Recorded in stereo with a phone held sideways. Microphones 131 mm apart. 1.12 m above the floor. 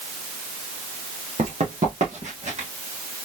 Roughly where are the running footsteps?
Right.